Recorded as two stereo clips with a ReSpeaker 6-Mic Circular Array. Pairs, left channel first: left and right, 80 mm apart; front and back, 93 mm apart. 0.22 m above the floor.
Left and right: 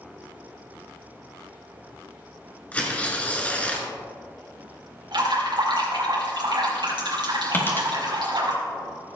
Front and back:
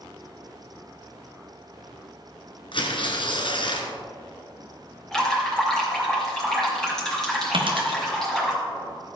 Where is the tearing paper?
15° left, 1.6 m.